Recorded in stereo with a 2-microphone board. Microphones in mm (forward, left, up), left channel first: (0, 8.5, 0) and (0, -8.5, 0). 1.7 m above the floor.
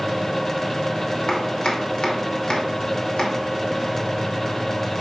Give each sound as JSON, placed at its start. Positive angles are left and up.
{"t": 1.3, "sound": "chopping", "side_deg": 65, "distance_m": 2.0}